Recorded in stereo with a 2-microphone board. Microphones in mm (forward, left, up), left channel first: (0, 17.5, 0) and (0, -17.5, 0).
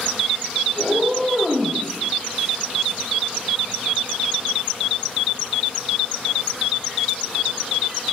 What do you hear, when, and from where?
0.8 s a cat meowing: centre (ahead or behind), 1.1 m